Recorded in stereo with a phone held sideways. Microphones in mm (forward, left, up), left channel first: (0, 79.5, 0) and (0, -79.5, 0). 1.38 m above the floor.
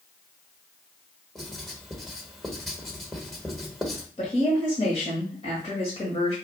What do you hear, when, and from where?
1.4 s writing: centre (ahead or behind), 1.1 m
4.2 s a woman speaking: 40° left (ahead or behind), 1.7 m